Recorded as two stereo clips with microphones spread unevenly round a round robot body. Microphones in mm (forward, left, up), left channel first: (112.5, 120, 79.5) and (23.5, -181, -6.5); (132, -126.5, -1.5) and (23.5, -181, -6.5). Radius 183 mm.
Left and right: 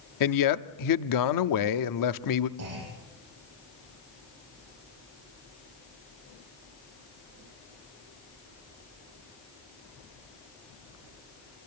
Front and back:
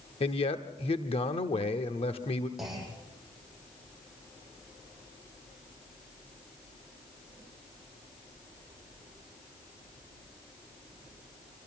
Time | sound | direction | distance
0.2 | a man speaking | 60° left | 1.0 m
2.6 | a clunk | 65° right | 9 m